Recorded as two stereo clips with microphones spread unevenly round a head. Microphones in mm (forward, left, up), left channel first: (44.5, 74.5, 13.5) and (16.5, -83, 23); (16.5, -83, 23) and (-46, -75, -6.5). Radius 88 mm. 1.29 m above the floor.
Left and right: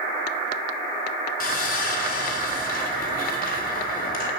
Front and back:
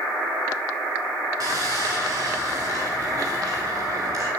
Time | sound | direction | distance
1.4 | sawing | 120° left | 4 m